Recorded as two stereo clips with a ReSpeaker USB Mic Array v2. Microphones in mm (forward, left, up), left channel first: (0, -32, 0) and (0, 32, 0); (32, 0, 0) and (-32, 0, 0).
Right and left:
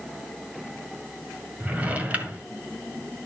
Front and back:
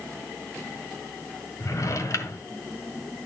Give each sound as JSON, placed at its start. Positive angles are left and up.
{"t": 1.6, "sound": "a drawer", "azimuth_deg": 25, "distance_m": 1.6}